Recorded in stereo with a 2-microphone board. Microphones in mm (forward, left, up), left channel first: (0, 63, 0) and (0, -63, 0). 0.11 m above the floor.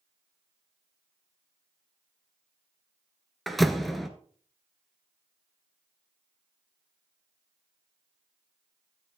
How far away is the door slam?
About 1.1 m.